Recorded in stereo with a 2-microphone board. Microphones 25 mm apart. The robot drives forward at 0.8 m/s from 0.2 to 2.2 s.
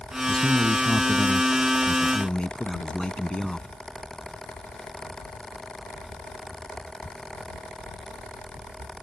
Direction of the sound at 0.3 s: 50° left (ahead or behind).